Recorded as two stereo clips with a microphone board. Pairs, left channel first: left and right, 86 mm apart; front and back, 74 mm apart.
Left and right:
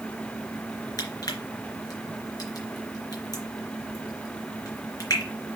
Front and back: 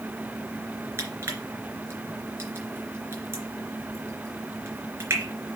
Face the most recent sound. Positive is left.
turn(degrees=130)